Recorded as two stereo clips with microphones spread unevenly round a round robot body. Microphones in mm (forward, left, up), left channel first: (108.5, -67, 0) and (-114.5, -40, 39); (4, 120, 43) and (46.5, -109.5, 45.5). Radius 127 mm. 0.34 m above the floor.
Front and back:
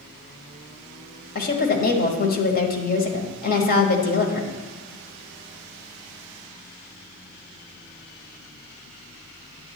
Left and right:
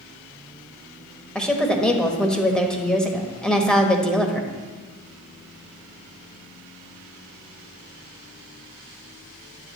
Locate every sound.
1.4 s a woman speaking: 15° left, 1.4 m